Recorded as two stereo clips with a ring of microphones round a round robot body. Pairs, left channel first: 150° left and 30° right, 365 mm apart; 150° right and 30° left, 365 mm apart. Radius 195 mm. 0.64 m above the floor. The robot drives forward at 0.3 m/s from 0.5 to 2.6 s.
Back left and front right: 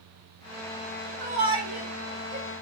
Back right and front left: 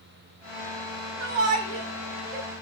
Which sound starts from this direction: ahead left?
A shout, at 1.2 s.